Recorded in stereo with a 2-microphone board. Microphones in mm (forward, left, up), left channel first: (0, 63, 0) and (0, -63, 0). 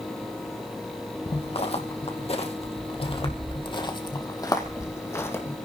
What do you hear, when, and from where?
1.3 s footsteps: 50° left (ahead or behind), 2.5 m; by 5.6 s 20° left (ahead or behind), 3 m